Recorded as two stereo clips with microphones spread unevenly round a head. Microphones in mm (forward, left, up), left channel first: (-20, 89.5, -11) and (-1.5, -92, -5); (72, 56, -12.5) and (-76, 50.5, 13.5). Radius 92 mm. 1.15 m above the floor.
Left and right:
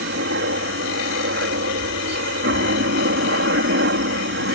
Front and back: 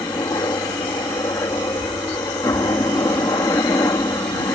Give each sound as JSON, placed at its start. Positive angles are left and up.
{"t": 0.0, "sound": "a helicopter", "azimuth_deg": -70}